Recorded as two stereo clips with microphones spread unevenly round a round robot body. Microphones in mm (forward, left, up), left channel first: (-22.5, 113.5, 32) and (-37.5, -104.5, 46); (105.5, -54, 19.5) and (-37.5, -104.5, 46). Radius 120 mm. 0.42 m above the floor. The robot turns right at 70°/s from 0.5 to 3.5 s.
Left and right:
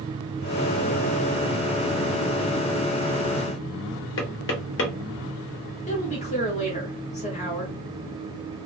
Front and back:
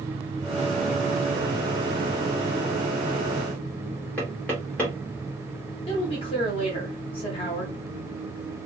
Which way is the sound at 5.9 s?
40° left.